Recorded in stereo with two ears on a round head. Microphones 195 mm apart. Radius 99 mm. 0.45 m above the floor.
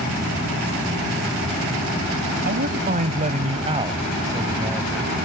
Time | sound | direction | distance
2.5 | a man speaking | 50° right (ahead or behind) | ?